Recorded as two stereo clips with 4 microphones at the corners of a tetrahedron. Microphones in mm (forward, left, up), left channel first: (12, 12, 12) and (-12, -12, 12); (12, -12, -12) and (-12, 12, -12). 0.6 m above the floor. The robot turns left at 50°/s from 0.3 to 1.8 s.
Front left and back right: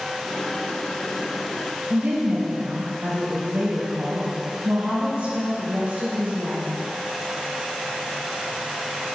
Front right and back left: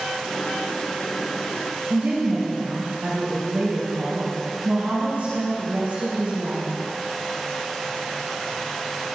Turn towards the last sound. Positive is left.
turn(degrees=175)